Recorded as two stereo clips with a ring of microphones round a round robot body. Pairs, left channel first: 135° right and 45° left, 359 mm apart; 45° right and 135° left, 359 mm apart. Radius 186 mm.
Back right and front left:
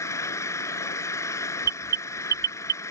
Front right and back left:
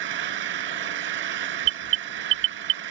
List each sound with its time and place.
0.0 s an engine running: 145° left
1.6 s an alarm: 105° left